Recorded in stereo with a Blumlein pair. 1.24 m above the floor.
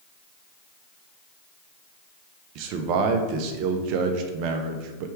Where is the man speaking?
40° right, 0.6 m.